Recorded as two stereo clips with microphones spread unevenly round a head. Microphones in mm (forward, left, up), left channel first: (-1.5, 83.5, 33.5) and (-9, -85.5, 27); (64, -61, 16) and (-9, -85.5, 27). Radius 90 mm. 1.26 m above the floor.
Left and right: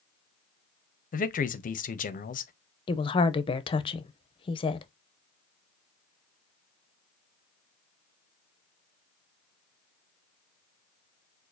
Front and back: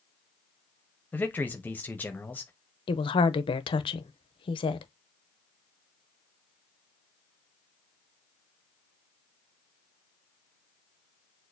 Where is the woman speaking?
25° left, 0.6 m.